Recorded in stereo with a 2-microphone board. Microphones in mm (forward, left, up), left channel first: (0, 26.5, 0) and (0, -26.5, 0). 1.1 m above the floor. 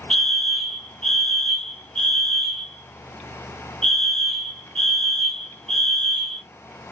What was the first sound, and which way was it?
A fire alarm, 10° left (ahead or behind).